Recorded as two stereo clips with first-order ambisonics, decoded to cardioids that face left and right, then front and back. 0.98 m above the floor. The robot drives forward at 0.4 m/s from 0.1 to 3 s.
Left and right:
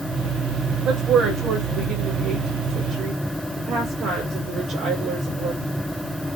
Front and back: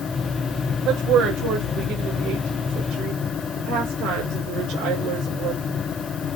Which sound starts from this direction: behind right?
A woman speaking, at 0.8 s.